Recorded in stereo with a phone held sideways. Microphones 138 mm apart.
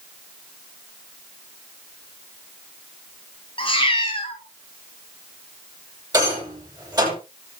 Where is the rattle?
30° right (ahead or behind), 10 m.